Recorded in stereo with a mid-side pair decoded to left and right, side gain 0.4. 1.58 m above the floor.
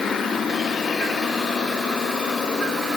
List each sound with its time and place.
Only background noise.